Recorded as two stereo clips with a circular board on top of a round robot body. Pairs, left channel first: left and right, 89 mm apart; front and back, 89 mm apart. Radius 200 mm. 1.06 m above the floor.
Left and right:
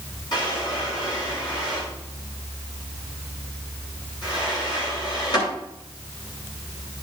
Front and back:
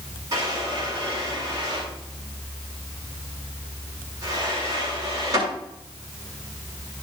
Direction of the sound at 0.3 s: 130° left.